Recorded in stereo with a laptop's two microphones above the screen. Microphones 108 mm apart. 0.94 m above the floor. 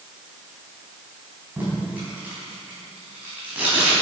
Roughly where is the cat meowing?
I don't hear a cat meowing.